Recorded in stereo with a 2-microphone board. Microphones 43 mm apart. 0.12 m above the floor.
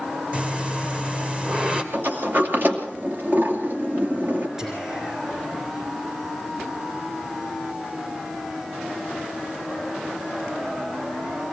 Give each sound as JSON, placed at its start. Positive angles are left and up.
{"t": 0.3, "sound": "breathing", "side_deg": -30, "distance_m": 2.0}
{"t": 1.9, "sound": "a sliding door", "side_deg": -50, "distance_m": 2.5}
{"t": 4.6, "sound": "whispering", "side_deg": -10, "distance_m": 1.6}